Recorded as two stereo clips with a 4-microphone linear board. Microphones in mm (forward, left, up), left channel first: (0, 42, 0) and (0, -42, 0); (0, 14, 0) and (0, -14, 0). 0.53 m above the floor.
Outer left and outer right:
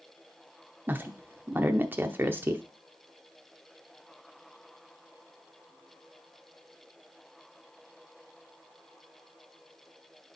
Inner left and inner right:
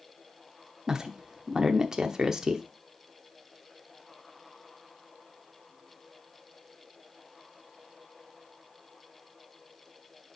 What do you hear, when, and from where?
0.9 s a woman speaking: 25° right (ahead or behind), 0.8 m